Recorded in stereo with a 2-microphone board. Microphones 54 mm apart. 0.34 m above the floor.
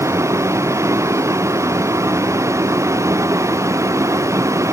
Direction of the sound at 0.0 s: 65° right (ahead or behind).